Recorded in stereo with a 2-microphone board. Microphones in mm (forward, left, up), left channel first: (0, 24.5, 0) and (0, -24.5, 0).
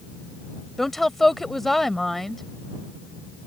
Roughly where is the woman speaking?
Centre.